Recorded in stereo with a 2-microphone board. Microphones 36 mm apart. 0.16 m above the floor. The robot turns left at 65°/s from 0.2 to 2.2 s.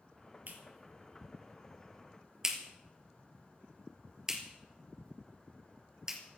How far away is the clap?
About 3 m.